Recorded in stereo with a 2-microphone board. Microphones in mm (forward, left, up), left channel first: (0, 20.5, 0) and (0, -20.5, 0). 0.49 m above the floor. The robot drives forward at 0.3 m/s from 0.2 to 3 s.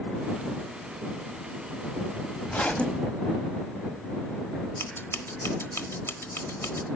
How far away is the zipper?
About 0.8 m.